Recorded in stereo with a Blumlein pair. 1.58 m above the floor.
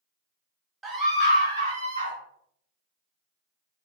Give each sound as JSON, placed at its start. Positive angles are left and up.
{"t": 0.8, "sound": "a scream", "azimuth_deg": -15, "distance_m": 0.6}